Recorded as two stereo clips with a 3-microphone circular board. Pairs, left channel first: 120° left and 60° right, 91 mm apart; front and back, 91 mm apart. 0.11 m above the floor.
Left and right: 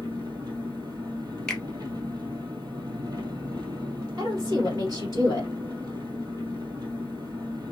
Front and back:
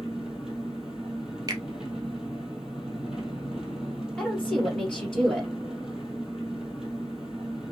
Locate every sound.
0.0 s an engine running: 95° right, 1.3 m
1.5 s a finger snap: 160° right, 1.4 m
4.2 s a woman speaking: 80° right, 2.5 m